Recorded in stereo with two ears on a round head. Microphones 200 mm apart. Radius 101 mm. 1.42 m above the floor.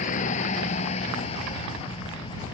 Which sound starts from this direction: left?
A vehicle, at 0.0 s.